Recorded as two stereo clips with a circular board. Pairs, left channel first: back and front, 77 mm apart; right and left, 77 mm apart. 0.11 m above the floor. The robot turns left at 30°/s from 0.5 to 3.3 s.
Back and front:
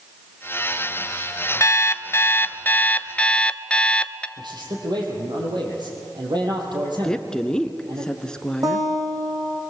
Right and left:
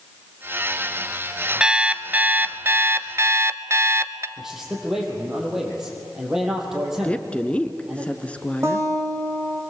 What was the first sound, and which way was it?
An alarm clock, 160° left.